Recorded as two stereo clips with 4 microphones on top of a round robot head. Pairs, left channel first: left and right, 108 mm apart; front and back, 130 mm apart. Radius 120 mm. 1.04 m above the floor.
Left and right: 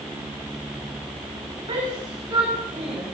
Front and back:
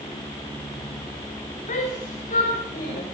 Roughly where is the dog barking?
No dog barking in this recording.